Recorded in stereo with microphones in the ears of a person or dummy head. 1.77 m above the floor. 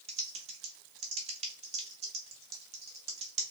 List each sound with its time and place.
0.1 s typing on a keyboard: 30° right (ahead or behind), 0.9 m